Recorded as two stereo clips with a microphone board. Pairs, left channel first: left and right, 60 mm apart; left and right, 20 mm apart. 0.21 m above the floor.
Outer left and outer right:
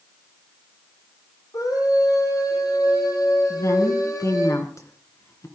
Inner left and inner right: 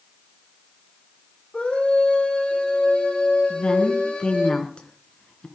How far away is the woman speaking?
About 3 m.